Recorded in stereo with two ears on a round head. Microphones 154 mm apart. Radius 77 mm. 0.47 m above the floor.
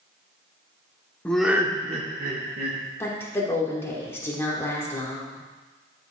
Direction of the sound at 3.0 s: 15° left (ahead or behind).